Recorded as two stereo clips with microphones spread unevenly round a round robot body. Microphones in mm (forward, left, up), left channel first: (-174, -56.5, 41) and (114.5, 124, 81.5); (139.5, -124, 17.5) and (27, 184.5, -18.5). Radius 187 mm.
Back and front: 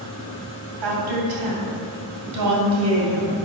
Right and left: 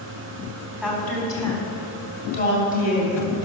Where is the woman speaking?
20° left, 3.5 m; by 3.3 s 25° right, 3 m.